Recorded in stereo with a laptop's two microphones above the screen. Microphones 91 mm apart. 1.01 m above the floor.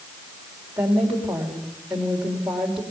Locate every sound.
0.8 s a woman speaking: 5° right (ahead or behind), 3.5 m